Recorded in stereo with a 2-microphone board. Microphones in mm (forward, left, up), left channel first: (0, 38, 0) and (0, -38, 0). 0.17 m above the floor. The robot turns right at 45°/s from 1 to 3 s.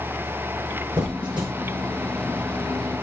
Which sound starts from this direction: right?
A squeak, at 1.0 s.